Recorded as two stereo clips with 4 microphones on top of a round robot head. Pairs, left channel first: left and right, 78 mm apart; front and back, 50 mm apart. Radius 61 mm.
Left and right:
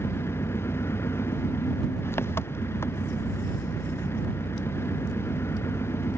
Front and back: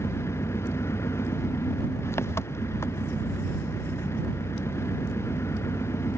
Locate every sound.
0.0 s an engine running: 30° left